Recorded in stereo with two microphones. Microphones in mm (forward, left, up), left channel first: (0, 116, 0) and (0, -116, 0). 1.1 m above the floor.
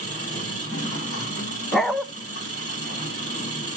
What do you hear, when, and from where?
0.0 s an engine running: 80° left, 5 m
1.7 s a dog barking: centre (ahead or behind), 0.7 m